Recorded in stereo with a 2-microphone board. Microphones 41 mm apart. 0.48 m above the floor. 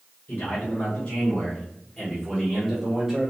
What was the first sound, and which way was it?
A man speaking, 50° left (ahead or behind).